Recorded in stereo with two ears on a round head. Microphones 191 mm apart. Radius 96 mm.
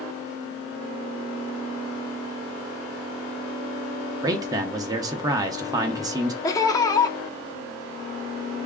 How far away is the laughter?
About 0.8 m.